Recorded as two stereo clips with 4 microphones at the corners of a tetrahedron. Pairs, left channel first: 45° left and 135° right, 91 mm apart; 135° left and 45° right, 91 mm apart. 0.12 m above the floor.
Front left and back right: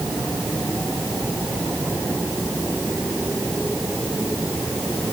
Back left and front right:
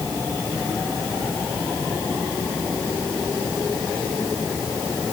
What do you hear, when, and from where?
Only background noise.